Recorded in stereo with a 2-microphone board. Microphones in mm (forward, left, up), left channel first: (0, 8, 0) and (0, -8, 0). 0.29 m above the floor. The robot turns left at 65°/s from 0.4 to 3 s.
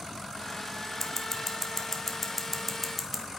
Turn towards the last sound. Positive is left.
turn(degrees=0)  # may be behind; listen again after turning